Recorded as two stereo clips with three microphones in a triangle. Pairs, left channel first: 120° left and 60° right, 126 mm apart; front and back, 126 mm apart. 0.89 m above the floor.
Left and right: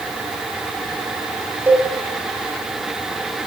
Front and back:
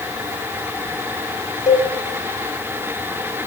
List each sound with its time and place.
1.7 s a cowbell: 10° left, 3.5 m